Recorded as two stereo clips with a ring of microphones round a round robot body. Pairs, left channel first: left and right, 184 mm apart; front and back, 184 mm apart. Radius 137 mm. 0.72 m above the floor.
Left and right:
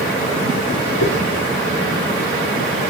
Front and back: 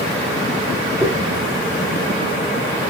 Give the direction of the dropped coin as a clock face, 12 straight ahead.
8 o'clock.